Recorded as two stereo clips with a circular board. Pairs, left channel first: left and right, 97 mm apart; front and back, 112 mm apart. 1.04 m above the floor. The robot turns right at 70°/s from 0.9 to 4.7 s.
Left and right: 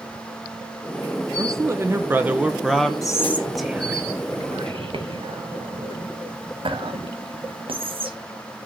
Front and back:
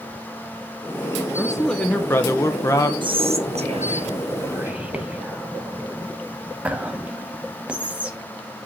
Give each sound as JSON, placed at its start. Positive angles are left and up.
{"t": 1.4, "sound": "a man speaking", "azimuth_deg": -100, "distance_m": 0.5}
{"t": 3.0, "sound": "whispering", "azimuth_deg": 140, "distance_m": 1.2}